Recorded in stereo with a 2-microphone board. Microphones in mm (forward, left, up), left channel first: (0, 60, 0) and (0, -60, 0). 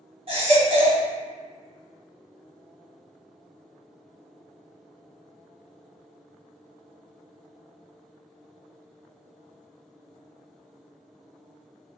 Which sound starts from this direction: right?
A baby crying, at 0.3 s.